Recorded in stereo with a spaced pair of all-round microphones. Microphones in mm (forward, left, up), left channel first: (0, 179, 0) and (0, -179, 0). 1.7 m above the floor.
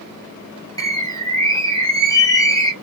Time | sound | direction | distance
0.8 | a bird | 10° left (ahead or behind) | 0.7 m